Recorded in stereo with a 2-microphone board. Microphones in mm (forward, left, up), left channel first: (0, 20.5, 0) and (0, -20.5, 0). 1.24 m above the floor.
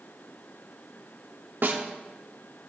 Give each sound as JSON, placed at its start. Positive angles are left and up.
{"t": 1.6, "sound": "a snare drum", "side_deg": -65, "distance_m": 1.3}